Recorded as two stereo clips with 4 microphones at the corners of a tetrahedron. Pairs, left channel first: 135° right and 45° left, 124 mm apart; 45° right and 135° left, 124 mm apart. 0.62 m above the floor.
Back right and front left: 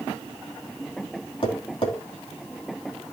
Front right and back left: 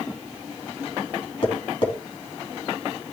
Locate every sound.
1.4 s tapping: 90° right, 3 m